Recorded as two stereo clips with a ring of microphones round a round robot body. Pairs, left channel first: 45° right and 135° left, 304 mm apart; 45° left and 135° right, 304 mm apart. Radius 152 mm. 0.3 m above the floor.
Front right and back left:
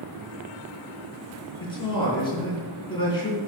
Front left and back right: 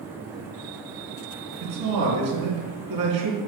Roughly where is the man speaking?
Behind right.